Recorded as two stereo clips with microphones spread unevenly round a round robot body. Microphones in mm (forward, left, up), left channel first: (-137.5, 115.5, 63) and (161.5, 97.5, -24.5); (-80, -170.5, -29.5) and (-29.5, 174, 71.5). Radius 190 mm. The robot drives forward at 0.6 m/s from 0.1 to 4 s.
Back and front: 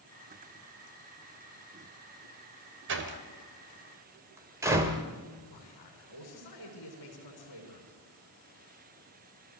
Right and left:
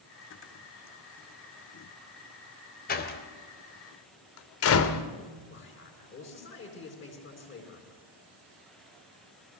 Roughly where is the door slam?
Ahead right.